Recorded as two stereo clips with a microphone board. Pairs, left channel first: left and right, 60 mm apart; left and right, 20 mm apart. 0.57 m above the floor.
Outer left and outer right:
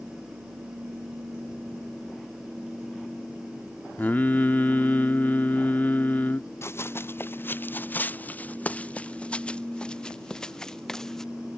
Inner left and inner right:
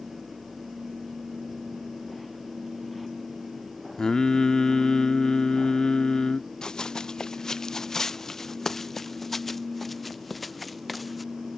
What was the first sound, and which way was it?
Singing, 30° left (ahead or behind).